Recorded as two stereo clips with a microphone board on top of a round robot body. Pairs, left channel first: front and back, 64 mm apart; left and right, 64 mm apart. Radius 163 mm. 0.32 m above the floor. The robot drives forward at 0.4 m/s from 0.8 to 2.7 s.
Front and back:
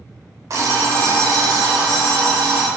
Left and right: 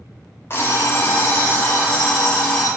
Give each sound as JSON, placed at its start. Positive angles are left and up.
{"t": 0.5, "sound": "an alarm clock", "azimuth_deg": 140, "distance_m": 0.8}